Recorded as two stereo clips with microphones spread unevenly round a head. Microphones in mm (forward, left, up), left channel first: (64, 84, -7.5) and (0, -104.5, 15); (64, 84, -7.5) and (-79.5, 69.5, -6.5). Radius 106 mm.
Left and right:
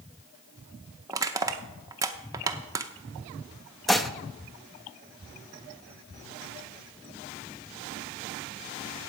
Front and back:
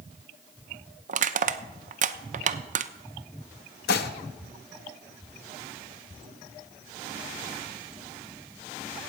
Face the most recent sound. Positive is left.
turn(degrees=-20)